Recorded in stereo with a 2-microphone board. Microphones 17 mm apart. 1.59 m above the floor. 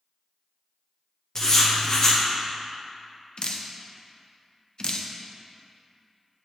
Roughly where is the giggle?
No giggle in this recording.